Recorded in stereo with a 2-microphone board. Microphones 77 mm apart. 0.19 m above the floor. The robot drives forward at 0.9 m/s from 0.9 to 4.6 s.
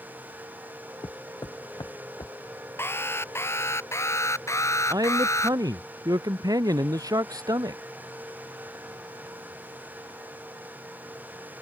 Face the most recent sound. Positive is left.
turn(degrees=-50)  # may be behind; listen again after turning